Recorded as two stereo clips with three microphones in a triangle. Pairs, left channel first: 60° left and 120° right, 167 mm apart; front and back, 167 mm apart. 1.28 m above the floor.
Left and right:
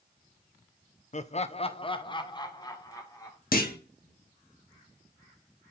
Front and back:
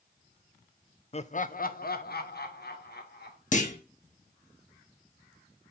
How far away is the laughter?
About 0.6 m.